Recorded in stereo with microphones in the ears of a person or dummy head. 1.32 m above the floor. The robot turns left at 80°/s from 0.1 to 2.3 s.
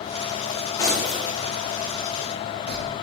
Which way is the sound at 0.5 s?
45° left (ahead or behind).